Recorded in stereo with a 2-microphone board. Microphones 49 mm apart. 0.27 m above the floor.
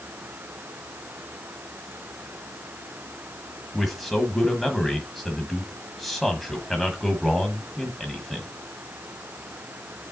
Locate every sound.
3.7 s a man speaking: centre (ahead or behind), 1.5 m